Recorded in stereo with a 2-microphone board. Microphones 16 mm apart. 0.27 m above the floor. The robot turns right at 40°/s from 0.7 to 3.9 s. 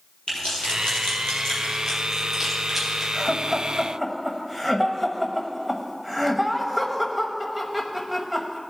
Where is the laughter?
5° left (ahead or behind), 1.0 m; by 8.6 s 10° right (ahead or behind), 1.0 m.